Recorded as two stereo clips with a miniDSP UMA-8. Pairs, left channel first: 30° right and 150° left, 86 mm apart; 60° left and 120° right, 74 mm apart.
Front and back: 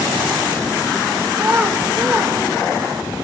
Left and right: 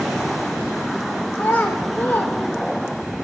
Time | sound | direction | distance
1.4 | a child speaking | 100° left | 0.5 m